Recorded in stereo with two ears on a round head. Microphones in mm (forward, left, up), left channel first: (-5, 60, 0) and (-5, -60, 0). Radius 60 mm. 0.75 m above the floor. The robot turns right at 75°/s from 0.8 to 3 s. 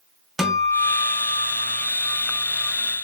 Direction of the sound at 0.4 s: Centre (ahead or behind).